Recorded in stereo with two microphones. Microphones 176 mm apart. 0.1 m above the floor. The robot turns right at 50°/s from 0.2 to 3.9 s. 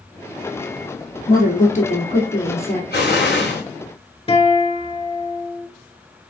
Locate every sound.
1.3 s a woman speaking: 90° left, 1.9 m; by 2.8 s 170° left, 1.9 m
2.9 s an explosion: 70° left, 2.5 m; by 3.6 s 105° left, 2.5 m
4.3 s a guitar: 35° left (ahead or behind), 1.3 m